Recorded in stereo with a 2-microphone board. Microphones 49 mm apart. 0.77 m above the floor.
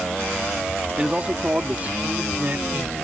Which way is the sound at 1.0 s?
20° right (ahead or behind).